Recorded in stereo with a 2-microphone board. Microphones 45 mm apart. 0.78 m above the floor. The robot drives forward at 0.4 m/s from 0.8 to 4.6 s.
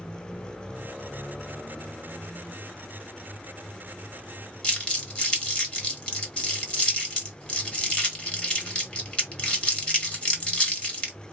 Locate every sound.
4.6 s crumpling: 25° left (ahead or behind), 1.6 m